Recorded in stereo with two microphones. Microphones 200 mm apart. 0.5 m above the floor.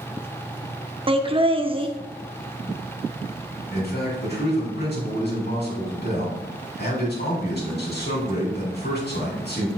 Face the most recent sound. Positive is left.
turn(degrees=55)  # may be behind; listen again after turning